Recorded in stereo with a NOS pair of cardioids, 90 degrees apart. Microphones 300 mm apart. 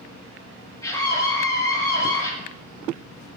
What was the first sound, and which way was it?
A scream, 10° left.